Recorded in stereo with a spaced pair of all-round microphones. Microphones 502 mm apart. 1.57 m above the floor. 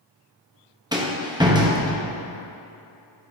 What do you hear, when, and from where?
0.9 s a rattle: 10° right (ahead or behind), 0.8 m